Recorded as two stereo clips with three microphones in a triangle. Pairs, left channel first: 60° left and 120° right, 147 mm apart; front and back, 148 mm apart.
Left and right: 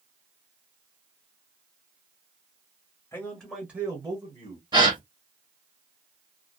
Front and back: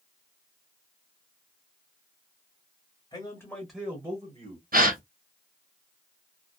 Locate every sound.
3.1 s a man speaking: 5° left, 1.4 m; by 4.6 s 150° right, 1.7 m
4.7 s a gasp: straight behind, 1.0 m